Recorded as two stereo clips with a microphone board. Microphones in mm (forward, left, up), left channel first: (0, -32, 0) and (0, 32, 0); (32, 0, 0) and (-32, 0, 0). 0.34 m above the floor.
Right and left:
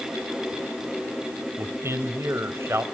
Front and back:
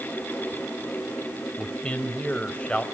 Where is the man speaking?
65° left, 1.4 m.